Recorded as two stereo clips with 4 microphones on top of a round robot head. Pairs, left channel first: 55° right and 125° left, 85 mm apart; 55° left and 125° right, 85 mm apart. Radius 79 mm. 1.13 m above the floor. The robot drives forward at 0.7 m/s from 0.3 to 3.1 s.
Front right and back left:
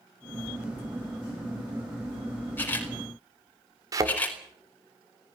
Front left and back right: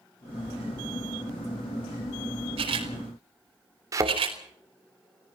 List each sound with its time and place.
2.6 s a camera shutter: 120° right, 5 m; by 4.4 s 125° right, 5 m
3.9 s a thud: straight behind, 2 m